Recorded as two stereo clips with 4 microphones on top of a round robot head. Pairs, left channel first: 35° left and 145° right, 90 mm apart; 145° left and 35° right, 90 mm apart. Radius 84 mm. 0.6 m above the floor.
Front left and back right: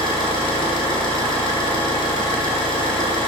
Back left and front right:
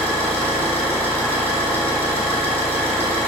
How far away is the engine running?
About 3 m.